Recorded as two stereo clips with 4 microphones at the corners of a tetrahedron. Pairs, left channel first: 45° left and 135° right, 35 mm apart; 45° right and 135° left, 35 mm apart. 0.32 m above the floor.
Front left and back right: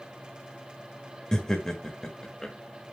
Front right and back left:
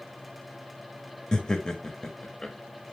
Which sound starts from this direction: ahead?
Laughter, at 1.3 s.